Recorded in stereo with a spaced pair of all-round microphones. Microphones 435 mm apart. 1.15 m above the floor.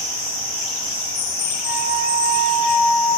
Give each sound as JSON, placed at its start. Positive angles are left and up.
{"t": 1.6, "sound": "a flute", "side_deg": -55, "distance_m": 2.5}